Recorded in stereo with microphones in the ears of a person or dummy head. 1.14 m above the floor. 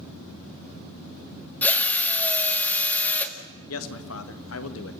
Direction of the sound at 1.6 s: 15° left (ahead or behind).